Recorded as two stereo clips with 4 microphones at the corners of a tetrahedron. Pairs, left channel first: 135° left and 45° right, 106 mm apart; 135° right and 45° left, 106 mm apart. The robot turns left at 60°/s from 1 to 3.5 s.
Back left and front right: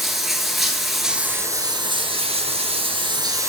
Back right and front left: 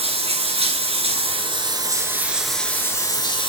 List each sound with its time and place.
0.0 s running water: 45° left, 1.3 m; by 3.5 s 105° right, 1.3 m